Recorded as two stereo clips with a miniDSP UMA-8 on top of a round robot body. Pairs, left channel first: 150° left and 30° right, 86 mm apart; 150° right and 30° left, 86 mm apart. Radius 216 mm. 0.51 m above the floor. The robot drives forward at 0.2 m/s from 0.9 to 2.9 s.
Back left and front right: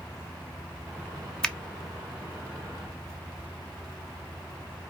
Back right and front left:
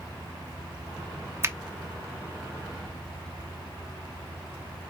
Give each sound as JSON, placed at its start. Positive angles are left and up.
{"t": 1.4, "sound": "a finger snap", "azimuth_deg": 75, "distance_m": 1.0}